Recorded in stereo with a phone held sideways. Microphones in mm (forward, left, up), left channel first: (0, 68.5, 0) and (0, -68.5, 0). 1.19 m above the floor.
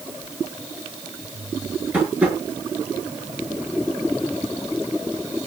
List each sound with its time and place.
1.9 s tapping: 10° right (ahead or behind), 8 m